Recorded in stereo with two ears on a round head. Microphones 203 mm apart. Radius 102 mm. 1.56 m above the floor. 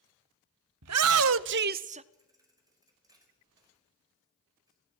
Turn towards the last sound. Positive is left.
turn(degrees=-15)  # may be behind; listen again after turning